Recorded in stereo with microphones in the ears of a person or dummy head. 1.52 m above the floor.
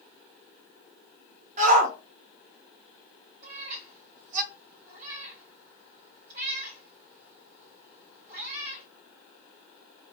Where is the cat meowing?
55° right (ahead or behind), 2.5 m.